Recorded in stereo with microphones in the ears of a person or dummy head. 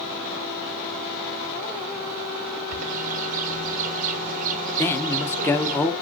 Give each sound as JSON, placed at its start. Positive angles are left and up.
{"t": 2.7, "sound": "a bird", "side_deg": -45, "distance_m": 0.9}
{"t": 4.8, "sound": "a man speaking", "side_deg": 15, "distance_m": 1.1}